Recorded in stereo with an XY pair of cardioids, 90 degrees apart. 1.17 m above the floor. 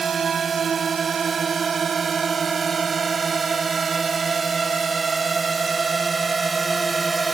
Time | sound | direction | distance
0.0 | a drone | 50° right | ?